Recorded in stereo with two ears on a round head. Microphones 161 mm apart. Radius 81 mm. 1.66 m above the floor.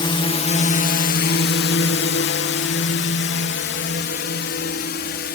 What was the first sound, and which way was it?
A drone, 25° left (ahead or behind).